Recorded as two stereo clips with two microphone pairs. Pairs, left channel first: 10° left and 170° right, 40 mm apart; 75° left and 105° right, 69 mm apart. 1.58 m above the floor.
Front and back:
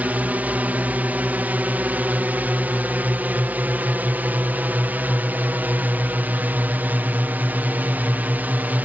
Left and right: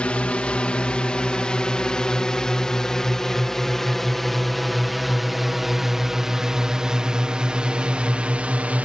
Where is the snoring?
No snoring in this recording.